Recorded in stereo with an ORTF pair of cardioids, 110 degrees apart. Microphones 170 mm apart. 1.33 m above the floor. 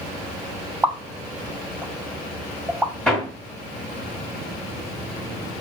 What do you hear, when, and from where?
0.8 s a pop: 5° right, 0.7 m
3.1 s hammering: 5° left, 1.9 m